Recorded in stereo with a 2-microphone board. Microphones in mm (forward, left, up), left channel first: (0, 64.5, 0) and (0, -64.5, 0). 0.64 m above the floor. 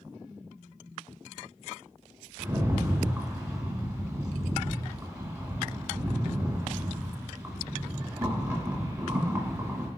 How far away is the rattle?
About 0.9 m.